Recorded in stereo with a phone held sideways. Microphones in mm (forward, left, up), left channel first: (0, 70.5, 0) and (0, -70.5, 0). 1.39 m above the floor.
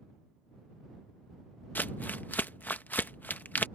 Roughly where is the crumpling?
Centre.